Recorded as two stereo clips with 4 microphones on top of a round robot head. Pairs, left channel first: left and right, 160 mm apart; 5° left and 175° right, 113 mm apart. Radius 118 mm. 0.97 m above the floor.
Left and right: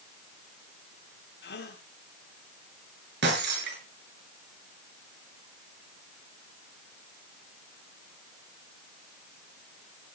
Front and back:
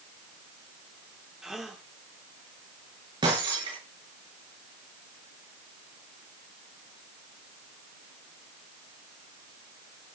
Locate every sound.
1.4 s a gasp: 95° left, 3.5 m
3.2 s breaking glass: 115° right, 7.5 m